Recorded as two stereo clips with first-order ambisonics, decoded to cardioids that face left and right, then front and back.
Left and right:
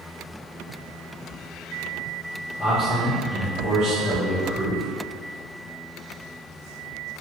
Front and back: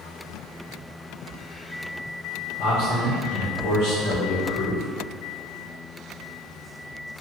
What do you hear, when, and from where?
2.6 s a man speaking: 15° left, 1.5 m